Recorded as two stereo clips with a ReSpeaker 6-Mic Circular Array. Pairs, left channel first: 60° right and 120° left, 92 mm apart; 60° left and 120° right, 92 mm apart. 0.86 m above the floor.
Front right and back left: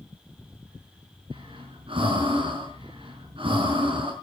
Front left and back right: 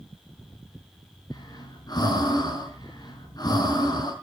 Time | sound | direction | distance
1.3 | breathing | 105° left | 5 m